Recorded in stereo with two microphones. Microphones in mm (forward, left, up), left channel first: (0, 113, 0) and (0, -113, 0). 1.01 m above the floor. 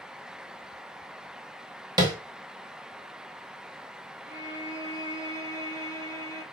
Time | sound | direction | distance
2.0 | tapping | 15° right (ahead or behind) | 1.2 m
4.3 | a violin | 45° left (ahead or behind) | 3 m